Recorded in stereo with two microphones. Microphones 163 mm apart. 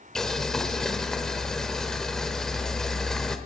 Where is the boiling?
5° left (ahead or behind), 1.0 m.